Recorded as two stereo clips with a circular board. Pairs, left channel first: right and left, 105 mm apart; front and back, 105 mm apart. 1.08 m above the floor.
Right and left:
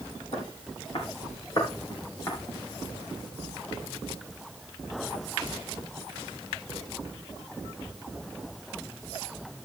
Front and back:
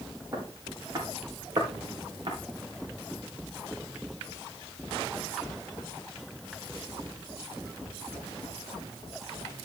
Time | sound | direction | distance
0.3 | footsteps | 120° right | 5 m